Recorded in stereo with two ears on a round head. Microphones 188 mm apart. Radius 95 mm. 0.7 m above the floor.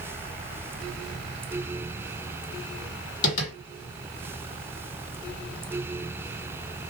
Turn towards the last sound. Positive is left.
turn(degrees=40)  # may be behind; listen again after turning